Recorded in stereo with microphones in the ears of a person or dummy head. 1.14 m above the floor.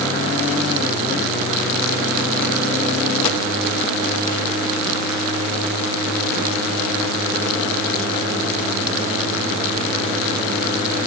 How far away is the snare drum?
I don't hear a snare drum.